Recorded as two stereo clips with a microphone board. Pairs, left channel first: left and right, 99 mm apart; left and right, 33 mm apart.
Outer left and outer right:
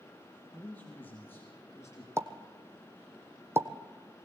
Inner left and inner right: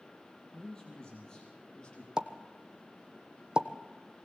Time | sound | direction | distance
0.5 | a man speaking | 15° left (ahead or behind) | 4 m
2.2 | a pop | 25° right (ahead or behind) | 1.2 m